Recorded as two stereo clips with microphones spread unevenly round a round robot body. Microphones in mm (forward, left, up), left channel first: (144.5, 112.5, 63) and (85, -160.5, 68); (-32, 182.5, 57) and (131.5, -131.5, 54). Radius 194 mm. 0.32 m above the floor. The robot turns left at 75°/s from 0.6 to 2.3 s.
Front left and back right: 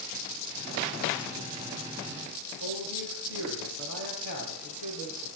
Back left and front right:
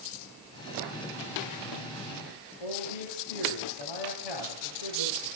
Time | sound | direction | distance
2.6 | a man speaking | 110° left | 7 m